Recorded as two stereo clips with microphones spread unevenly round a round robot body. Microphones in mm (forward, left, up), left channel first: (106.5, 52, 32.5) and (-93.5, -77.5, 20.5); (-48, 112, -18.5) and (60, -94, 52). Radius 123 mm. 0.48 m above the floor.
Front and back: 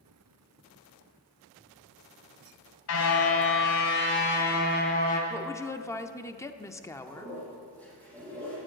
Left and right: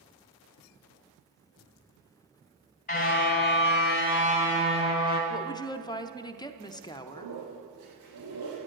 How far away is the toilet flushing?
About 7.5 m.